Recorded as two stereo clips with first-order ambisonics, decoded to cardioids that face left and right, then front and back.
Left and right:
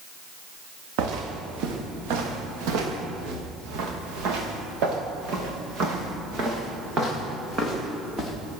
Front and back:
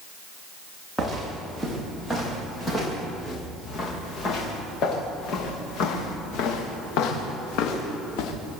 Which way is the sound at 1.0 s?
90° right.